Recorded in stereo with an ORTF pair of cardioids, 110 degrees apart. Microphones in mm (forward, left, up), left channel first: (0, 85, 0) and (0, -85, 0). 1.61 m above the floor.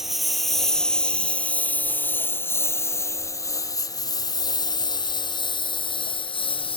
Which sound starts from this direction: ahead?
A lawn mower, at 0.0 s.